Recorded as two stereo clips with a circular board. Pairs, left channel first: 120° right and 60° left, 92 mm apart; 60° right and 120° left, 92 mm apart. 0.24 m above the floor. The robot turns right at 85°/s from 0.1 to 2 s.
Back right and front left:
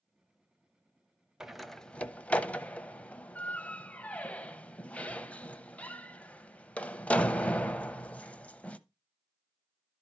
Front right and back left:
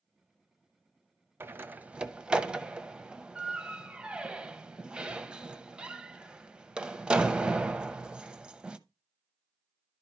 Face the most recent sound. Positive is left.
turn(degrees=-175)